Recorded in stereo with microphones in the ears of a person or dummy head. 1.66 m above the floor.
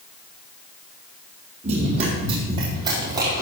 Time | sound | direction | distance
1.6 | running footsteps | 40° right (ahead or behind) | 4 m